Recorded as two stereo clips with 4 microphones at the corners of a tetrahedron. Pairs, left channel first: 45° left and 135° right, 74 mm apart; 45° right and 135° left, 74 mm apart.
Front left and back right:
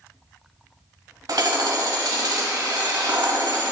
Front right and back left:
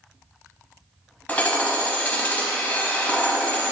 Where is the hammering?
110° right, 0.8 m.